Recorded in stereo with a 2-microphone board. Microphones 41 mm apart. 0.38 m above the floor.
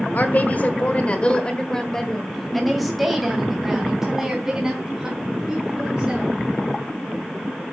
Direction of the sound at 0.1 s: 40° left (ahead or behind).